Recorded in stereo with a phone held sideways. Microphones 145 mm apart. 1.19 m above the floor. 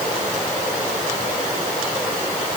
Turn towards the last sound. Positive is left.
No sound to turn to.